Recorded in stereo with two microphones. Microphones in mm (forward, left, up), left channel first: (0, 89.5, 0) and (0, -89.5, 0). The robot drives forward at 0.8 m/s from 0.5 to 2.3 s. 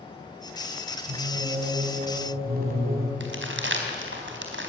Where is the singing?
60° right (ahead or behind), 4.5 m; by 3.1 s 50° right (ahead or behind), 5 m.